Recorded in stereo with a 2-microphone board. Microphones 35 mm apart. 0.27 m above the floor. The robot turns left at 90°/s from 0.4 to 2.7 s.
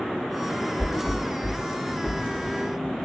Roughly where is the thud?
Left.